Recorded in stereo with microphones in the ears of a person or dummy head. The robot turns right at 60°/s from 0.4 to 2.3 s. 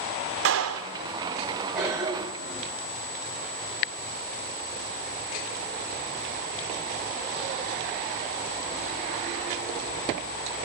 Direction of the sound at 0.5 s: 60° right (ahead or behind).